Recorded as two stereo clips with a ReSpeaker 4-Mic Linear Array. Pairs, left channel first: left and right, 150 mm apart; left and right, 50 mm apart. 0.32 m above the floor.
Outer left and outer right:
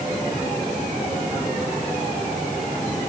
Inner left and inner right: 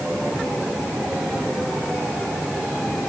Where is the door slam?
I don't hear a door slam.